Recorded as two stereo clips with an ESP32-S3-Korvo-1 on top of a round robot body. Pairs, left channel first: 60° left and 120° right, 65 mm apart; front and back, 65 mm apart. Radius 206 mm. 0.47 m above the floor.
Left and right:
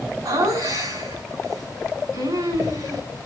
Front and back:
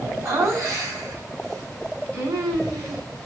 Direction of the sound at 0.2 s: 140° right.